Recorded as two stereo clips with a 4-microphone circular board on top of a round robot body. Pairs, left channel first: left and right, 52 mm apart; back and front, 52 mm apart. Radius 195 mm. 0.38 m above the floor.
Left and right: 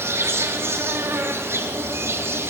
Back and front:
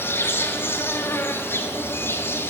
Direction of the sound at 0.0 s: 130° right.